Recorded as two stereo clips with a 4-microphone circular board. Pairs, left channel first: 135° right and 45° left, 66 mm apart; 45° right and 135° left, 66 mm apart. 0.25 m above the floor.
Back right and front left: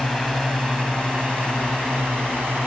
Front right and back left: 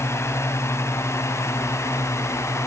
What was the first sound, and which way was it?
A drone, 35° right.